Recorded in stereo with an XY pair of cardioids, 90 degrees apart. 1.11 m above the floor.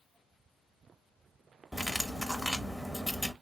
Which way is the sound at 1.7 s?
5° left.